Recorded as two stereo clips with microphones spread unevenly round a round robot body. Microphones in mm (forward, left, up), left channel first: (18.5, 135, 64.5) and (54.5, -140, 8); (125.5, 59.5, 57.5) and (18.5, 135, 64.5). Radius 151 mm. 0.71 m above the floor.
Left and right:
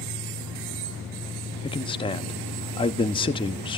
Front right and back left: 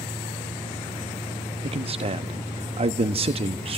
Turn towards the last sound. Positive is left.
turn(degrees=175)